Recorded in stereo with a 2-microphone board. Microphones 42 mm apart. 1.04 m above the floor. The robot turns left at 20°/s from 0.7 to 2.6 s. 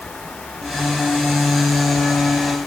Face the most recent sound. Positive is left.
No sound to turn to.